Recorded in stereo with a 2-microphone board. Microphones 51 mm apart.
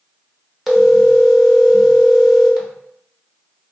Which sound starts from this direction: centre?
A phone ringing, at 0.7 s.